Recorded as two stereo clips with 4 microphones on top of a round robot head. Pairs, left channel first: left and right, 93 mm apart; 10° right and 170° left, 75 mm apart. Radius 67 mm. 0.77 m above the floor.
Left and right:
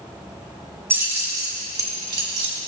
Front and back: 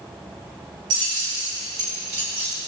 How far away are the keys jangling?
About 2.5 m.